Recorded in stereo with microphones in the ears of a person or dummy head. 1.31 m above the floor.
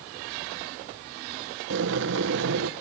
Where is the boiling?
60° right (ahead or behind), 0.9 m.